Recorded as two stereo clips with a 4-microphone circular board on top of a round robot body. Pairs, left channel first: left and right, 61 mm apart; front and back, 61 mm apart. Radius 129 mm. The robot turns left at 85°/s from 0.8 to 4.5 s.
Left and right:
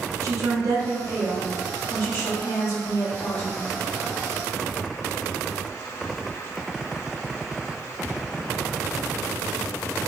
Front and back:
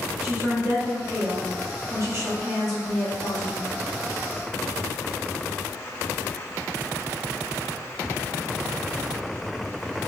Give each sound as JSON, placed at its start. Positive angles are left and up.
{"t": 0.2, "sound": "a woman speaking", "azimuth_deg": -115, "distance_m": 1.3}